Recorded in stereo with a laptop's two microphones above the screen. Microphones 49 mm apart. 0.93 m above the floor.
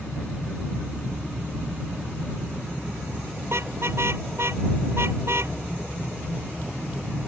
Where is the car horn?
55° right (ahead or behind).